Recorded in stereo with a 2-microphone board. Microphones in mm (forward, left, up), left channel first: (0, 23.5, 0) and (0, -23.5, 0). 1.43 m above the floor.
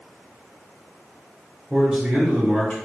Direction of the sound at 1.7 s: 10° right (ahead or behind).